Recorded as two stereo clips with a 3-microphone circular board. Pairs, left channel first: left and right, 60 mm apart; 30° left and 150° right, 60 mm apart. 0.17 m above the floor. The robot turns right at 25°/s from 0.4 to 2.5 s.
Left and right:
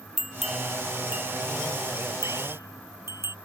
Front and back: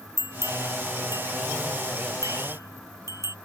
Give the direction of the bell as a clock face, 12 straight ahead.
6 o'clock.